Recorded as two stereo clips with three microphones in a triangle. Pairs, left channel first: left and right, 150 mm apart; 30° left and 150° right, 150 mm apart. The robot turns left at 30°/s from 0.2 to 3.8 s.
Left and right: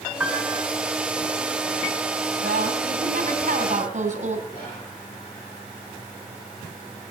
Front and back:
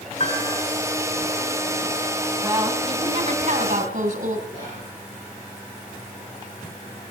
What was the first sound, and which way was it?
A piano, 15° right.